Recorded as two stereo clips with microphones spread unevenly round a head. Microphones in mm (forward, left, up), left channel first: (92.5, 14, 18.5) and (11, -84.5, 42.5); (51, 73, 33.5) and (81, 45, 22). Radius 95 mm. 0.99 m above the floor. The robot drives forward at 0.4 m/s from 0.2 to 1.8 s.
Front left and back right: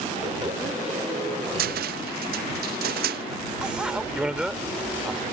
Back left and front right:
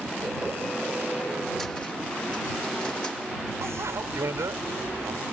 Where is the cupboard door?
135° right; by 3.2 s 140° right.